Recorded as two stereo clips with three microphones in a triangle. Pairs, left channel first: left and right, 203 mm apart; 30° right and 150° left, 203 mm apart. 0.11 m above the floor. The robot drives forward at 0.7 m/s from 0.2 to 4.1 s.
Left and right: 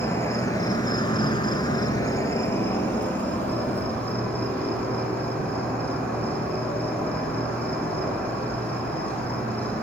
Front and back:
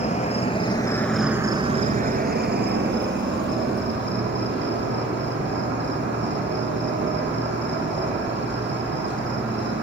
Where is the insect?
15° left, 1.0 m; by 9.8 s 175° left, 2 m.